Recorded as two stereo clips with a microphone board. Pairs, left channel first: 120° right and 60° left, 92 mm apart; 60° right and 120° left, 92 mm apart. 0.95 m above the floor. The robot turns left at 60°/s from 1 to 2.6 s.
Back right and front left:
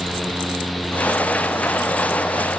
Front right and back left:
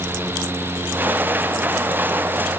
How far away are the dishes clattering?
I don't hear dishes clattering.